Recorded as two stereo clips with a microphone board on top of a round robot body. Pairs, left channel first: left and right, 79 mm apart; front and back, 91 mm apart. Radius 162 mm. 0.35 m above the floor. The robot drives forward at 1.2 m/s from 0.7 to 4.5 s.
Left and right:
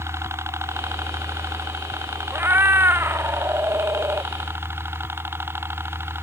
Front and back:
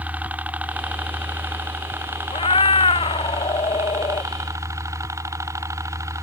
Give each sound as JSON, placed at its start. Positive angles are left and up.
{"t": 0.0, "sound": "a helicopter", "azimuth_deg": -115}
{"t": 2.3, "sound": "a cat meowing", "azimuth_deg": -25}